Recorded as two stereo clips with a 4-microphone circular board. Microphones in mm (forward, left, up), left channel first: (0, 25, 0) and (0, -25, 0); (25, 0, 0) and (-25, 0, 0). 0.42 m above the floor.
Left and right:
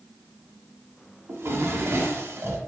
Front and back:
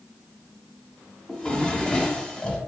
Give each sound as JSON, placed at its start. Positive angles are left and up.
{"t": 1.3, "sound": "a drawer", "azimuth_deg": -70, "distance_m": 0.6}